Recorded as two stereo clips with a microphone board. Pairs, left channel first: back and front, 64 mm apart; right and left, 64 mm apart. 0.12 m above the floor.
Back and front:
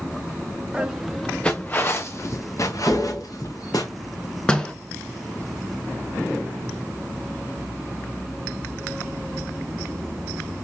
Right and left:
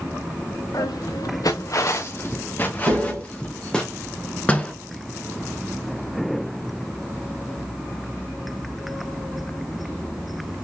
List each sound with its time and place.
0.7 s footsteps: 75° right, 0.7 m; by 3.9 s 165° right, 1.6 m
2.9 s tapping: 95° left, 2.5 m
4.5 s a door slam: 125° right, 0.8 m